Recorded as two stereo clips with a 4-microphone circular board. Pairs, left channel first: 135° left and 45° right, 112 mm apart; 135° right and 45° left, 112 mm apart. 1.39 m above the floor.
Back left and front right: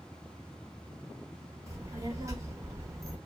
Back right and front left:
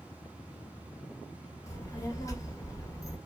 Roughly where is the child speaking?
Right.